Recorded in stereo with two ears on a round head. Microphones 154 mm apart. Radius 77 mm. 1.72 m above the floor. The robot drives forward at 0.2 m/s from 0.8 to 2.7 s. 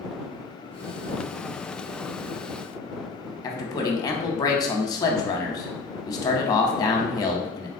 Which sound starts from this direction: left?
A man speaking, at 3.4 s.